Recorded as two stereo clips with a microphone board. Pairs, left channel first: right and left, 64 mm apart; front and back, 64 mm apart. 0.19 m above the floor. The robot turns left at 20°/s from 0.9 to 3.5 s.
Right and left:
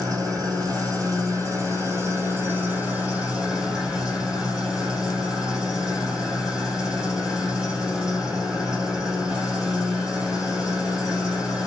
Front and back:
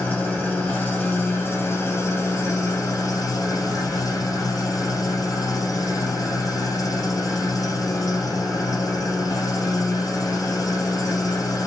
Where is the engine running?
65° left, 3 m; by 11.7 s 15° left, 3 m.